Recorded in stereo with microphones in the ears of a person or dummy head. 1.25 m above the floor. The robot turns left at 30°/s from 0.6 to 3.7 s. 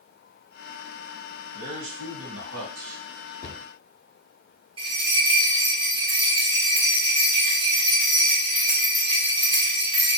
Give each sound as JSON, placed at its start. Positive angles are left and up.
{"t": 1.5, "sound": "a man speaking", "azimuth_deg": -60, "distance_m": 1.5}
{"t": 3.4, "sound": "a cupboard door", "side_deg": 35, "distance_m": 0.7}
{"t": 4.8, "sound": "a bell", "side_deg": -25, "distance_m": 0.9}